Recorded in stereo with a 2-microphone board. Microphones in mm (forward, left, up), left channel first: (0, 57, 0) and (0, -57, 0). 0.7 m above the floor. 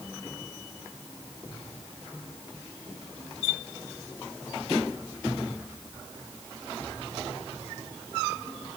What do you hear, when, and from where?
Only background noise.